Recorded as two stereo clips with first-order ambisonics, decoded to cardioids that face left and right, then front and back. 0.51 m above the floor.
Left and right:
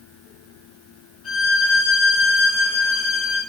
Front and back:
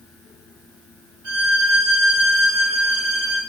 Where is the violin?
145° left, 1.8 m.